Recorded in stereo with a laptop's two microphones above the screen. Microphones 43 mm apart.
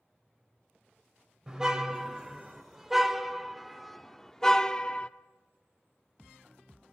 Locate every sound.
1.5 s a car horn: 15° right (ahead or behind), 2.5 m; by 5.1 s 30° left (ahead or behind), 0.9 m